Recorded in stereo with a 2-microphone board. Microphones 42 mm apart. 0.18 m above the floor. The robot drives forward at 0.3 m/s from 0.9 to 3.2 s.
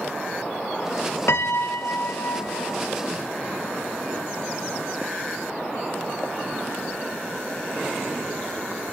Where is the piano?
80° left, 0.6 m; by 2.8 s 50° left (ahead or behind), 0.8 m.